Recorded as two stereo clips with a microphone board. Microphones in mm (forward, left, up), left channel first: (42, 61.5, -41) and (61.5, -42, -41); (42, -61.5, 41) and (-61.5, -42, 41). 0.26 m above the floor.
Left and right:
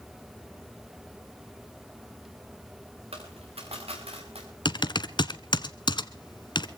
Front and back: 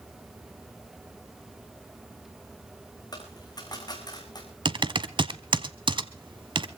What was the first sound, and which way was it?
A dropped coin, 60° right.